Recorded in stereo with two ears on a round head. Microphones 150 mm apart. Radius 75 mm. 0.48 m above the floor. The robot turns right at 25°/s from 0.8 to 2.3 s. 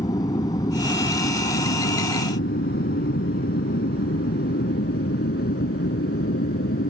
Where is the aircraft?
20° left (ahead or behind); by 6.9 s 60° left (ahead or behind).